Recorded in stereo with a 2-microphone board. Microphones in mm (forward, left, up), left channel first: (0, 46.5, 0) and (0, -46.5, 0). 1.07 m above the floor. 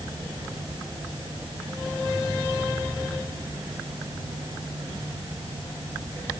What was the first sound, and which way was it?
Only background noise.